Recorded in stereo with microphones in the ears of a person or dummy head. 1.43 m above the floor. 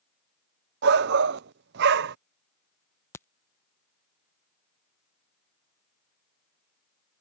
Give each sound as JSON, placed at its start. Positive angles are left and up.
{"t": 0.8, "sound": "a shout", "side_deg": -60}
{"t": 3.1, "sound": "a crack", "side_deg": 15}